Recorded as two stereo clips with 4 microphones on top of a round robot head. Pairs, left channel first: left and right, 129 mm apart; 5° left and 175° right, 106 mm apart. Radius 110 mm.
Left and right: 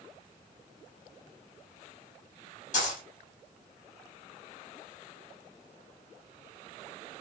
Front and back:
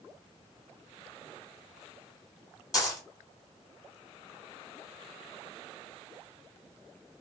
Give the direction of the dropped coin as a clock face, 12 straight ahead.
10 o'clock.